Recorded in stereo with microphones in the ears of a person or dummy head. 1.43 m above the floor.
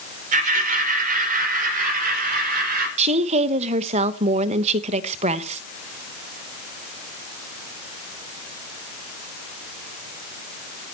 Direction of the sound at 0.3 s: 45° right (ahead or behind).